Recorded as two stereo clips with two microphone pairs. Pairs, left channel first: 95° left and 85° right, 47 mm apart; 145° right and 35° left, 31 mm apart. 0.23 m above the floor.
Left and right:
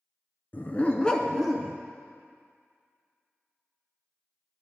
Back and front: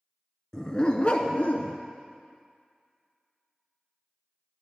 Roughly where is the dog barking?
Behind left.